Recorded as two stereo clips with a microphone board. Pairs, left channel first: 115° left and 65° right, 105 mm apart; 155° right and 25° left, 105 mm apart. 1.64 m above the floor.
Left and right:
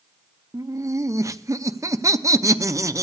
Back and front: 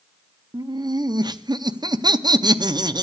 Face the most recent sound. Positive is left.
turn(degrees=-15)